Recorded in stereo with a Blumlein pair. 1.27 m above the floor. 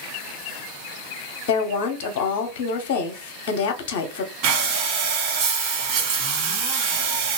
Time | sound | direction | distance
1.5 | a woman speaking | 50° left | 0.7 m
4.4 | breathing | 40° right | 1.4 m